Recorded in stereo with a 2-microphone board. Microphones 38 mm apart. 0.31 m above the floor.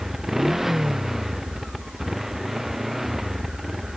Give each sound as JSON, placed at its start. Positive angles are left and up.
{"t": 0.0, "sound": "a motorcycle", "side_deg": -5}